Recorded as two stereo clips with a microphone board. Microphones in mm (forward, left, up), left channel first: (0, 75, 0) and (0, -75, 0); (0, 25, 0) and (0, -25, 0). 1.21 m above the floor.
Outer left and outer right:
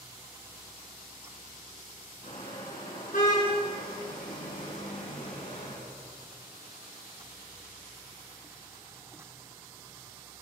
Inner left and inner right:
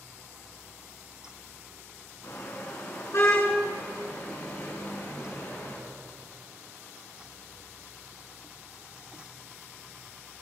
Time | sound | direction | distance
2.2 | a car horn | 55° left (ahead or behind) | 7.5 m